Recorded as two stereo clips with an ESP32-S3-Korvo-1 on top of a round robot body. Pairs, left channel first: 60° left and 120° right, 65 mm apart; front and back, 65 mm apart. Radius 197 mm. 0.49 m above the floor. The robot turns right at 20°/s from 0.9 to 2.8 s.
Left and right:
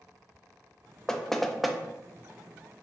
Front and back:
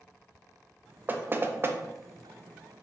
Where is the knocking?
140° left, 0.6 m; by 1.8 s 150° left, 0.6 m.